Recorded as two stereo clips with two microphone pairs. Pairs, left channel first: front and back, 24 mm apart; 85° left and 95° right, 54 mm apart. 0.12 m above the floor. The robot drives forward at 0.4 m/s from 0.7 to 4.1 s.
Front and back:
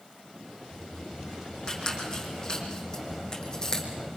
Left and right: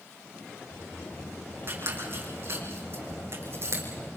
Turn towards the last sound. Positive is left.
turn(degrees=-60)